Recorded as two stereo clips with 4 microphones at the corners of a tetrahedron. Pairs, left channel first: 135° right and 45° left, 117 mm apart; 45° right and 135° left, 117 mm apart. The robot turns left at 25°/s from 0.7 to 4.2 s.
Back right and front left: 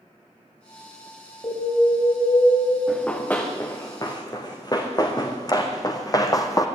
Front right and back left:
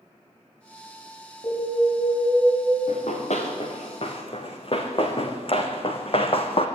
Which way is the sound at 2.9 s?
50° right.